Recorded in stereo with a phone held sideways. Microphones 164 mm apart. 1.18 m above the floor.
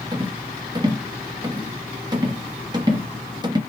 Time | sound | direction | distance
0.1 | a rattle | 25° right (ahead or behind) | 0.7 m